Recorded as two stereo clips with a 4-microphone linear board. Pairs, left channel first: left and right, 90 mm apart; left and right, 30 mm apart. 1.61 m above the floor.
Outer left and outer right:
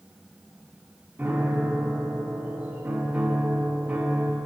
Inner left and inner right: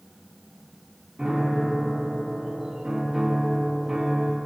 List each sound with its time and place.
1.2 s a piano: 20° right (ahead or behind), 1.6 m